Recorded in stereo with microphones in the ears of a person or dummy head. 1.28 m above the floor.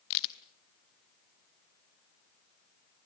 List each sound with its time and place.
0.1 s a crack: 60° left (ahead or behind), 1.3 m